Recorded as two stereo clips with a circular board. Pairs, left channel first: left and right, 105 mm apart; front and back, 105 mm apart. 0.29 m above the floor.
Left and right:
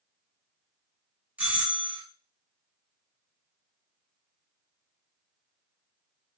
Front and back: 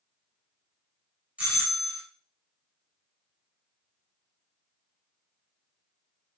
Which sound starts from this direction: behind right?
A doorbell, at 1.4 s.